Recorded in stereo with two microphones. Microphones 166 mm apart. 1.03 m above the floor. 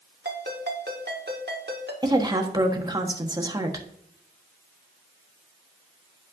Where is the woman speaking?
25° right (ahead or behind), 1.4 m.